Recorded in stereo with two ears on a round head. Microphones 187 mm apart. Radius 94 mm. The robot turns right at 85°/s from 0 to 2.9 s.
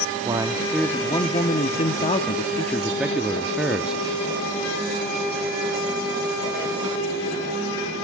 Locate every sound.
0.2 s a man speaking: 40° right, 1.1 m; by 4.0 s 175° right, 1.1 m